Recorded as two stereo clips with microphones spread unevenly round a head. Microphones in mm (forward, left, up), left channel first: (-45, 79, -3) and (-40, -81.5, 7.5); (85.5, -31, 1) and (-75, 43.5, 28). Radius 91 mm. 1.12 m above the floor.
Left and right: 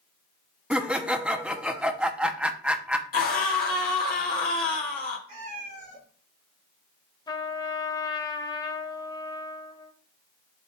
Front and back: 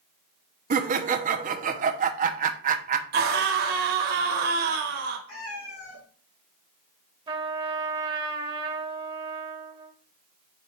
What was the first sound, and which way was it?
Laughter, 170° right.